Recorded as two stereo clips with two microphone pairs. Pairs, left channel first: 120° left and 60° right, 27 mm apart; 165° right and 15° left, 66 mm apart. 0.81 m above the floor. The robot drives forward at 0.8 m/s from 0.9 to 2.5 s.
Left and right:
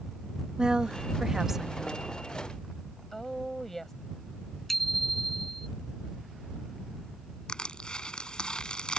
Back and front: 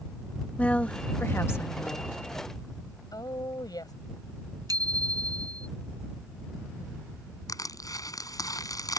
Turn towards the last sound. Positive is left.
turn(degrees=175)